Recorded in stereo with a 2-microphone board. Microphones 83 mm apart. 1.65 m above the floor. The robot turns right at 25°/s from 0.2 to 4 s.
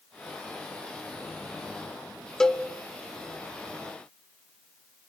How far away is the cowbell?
About 0.9 m.